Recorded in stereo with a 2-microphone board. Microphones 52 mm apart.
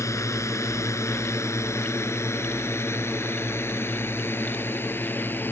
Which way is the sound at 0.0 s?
75° left (ahead or behind).